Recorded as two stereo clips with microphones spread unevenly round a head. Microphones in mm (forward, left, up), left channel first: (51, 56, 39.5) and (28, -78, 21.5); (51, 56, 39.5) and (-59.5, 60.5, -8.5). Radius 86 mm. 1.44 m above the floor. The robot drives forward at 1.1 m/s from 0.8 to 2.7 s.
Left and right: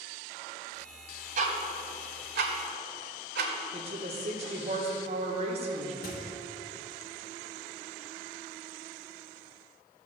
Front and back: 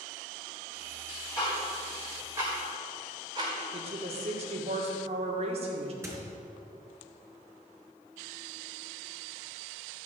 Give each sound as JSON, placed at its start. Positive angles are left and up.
{"t": 1.4, "sound": "ticking", "azimuth_deg": -65, "distance_m": 2.0}
{"t": 3.7, "sound": "a woman speaking", "azimuth_deg": -150, "distance_m": 1.8}
{"t": 6.0, "sound": "a squeak", "azimuth_deg": 105, "distance_m": 3.5}